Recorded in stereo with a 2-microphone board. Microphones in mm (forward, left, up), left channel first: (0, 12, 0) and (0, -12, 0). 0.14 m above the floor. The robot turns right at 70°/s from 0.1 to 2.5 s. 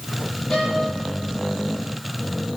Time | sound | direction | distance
0.5 | a violin | 25° left (ahead or behind) | 7 m